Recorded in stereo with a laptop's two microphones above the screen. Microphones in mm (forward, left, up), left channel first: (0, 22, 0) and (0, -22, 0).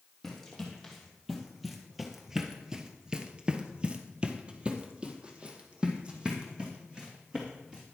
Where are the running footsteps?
5° left (ahead or behind), 2.5 m; by 7.8 s 20° right (ahead or behind), 4 m.